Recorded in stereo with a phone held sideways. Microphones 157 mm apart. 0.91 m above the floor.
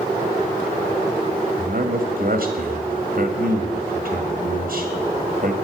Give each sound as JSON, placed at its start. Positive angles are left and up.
{"t": 1.6, "sound": "a man speaking", "side_deg": -65, "distance_m": 1.7}